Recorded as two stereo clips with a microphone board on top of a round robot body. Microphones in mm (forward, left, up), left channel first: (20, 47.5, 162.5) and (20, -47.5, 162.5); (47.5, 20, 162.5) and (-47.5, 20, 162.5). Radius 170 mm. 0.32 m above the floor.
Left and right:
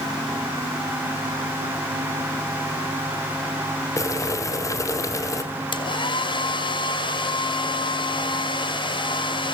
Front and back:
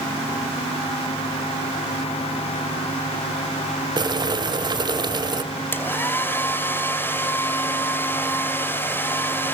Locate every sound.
4.0 s boiling: 145° left, 2 m
5.7 s a hair dryer: 65° left, 2.5 m